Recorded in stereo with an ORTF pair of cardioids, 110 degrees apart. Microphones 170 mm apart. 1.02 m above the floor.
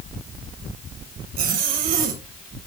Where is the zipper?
60° right, 2.0 m.